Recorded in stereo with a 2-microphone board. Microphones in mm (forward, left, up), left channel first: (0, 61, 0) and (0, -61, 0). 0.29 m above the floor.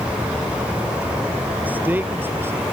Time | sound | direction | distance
1.6 | a man speaking | 15° right (ahead or behind) | ?